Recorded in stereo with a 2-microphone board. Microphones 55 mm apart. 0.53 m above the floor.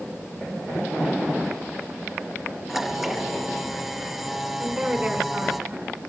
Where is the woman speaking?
10° right (ahead or behind), 4.5 m.